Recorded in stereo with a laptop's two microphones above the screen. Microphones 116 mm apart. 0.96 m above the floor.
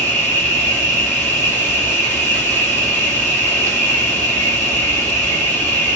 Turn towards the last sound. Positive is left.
turn(degrees=15)  # may be behind; listen again after turning